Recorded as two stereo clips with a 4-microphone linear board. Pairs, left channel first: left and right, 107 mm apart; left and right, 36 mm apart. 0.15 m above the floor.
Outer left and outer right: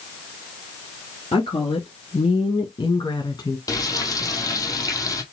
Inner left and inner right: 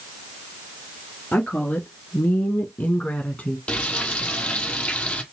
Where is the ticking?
No ticking in this recording.